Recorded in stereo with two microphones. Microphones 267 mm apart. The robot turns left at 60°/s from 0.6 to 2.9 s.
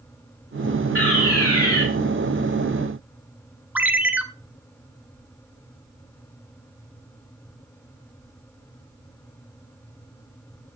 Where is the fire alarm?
120° left, 4.5 m; by 1.8 s 65° left, 4.5 m.